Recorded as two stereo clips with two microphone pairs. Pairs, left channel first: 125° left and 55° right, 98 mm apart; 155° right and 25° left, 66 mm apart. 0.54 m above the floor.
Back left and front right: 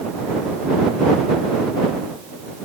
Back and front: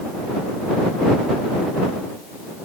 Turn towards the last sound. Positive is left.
No sound to turn to.